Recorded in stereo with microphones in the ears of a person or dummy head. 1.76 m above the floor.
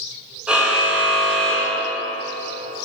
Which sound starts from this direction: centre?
A car horn, at 0.5 s.